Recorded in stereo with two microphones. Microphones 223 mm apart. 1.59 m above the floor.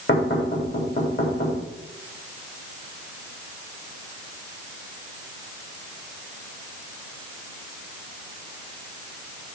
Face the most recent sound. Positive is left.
turn(degrees=50)  # may be behind; listen again after turning